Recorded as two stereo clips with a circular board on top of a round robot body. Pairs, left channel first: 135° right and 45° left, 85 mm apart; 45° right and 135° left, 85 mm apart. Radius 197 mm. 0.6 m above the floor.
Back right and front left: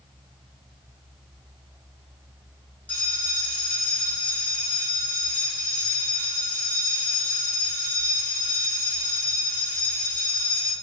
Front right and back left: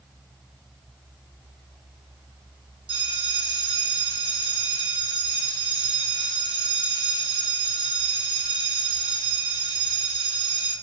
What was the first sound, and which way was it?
A bell, 150° left.